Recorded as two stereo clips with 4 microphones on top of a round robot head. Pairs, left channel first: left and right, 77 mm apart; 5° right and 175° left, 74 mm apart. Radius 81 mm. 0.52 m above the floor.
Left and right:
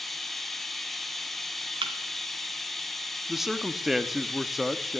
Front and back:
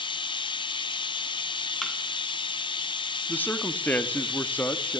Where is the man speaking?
10° right, 1.4 m.